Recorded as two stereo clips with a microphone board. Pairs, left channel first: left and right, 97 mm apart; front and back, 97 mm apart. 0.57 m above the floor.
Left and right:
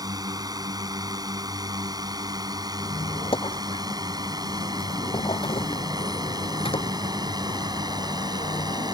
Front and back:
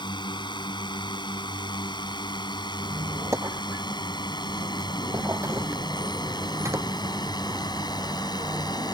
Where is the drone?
40° right; by 8.9 s 45° right.